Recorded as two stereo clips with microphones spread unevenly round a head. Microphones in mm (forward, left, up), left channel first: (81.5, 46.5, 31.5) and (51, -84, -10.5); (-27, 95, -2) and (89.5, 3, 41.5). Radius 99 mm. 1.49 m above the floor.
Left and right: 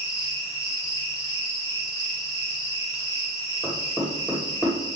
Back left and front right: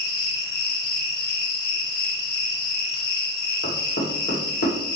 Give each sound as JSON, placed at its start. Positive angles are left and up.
{"t": 0.0, "sound": "an insect", "azimuth_deg": 155, "distance_m": 1.6}
{"t": 3.6, "sound": "knocking", "azimuth_deg": 160, "distance_m": 2.5}